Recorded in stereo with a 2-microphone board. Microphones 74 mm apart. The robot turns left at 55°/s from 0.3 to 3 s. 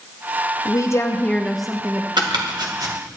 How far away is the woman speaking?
About 0.9 m.